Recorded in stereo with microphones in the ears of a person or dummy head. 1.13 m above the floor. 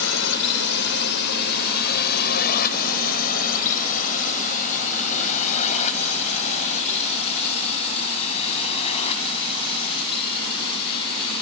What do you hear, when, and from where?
0.0 s a drone: 75° left (ahead or behind); by 11.4 s 40° left (ahead or behind)